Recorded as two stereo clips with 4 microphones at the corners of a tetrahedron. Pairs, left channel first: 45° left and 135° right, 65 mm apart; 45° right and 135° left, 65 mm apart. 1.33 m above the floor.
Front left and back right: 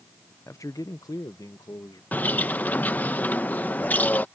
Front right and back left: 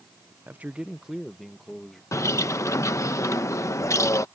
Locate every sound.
0.5 s a man speaking: 85° left; by 2.0 s 40° left
2.1 s a bird: 15° right